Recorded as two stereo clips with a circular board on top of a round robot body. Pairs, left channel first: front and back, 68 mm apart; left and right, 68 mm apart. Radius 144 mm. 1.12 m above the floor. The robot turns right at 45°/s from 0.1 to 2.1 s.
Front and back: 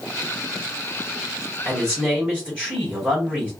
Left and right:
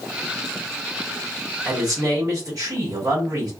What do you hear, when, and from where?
1.6 s a man speaking: 125° right, 1.9 m; by 3.5 s 105° right, 1.9 m